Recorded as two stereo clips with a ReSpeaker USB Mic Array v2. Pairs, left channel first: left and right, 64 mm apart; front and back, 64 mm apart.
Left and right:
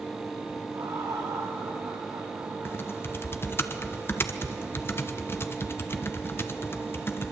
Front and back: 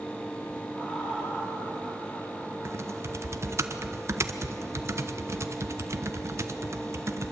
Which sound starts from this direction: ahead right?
Laughter, at 0.7 s.